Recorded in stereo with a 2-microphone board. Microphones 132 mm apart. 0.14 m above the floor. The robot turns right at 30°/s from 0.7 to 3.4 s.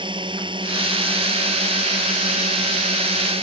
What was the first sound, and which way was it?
A drone, 140° right.